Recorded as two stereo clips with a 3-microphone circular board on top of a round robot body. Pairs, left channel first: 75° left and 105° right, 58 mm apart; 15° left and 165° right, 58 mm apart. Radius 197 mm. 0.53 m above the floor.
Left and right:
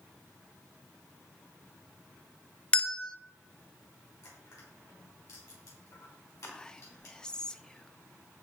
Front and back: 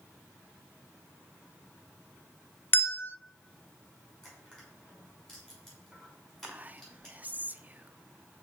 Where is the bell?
10° left, 1.1 m.